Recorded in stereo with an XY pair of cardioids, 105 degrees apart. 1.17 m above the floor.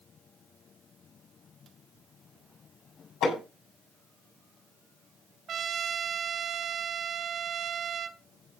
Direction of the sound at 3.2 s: 65° left.